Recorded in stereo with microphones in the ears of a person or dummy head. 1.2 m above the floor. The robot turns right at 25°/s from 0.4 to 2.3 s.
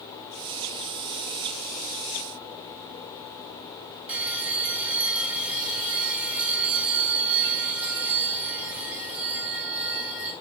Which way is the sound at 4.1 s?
10° right (ahead or behind).